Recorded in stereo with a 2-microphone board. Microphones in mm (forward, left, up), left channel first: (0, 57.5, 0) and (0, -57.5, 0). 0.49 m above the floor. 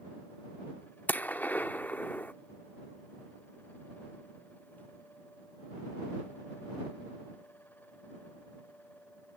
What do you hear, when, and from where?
1.1 s a gunshot: 15° left (ahead or behind)